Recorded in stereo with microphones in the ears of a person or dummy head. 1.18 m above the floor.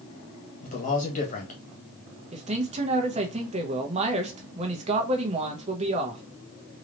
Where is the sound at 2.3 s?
35° right (ahead or behind), 0.9 m.